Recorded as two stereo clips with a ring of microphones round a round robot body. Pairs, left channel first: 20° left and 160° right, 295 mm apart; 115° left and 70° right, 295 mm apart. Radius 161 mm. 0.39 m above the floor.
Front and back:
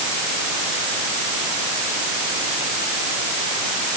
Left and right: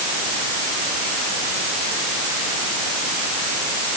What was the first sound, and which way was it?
Only background noise.